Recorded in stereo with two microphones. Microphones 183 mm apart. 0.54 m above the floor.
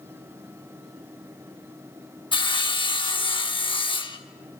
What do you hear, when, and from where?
2.3 s sawing: 25° left (ahead or behind), 0.7 m